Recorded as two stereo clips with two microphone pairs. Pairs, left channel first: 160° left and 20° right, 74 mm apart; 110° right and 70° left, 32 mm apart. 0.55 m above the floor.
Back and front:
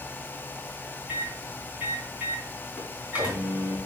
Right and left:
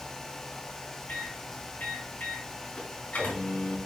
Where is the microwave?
90° right, 4 m.